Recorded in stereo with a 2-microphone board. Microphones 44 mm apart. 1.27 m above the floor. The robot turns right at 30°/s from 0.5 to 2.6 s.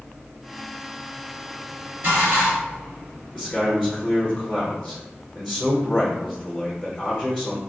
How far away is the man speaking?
About 0.9 m.